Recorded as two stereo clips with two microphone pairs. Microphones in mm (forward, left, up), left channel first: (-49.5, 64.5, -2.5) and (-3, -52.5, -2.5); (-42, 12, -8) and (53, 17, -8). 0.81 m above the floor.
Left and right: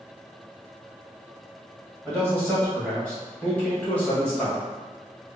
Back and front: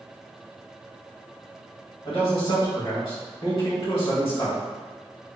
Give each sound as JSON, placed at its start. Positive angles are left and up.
{"t": 2.0, "sound": "a man speaking", "azimuth_deg": -170, "distance_m": 1.8}